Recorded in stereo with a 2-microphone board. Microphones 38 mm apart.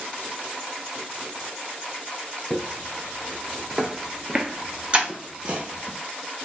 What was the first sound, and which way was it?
Footsteps, 5° left (ahead or behind).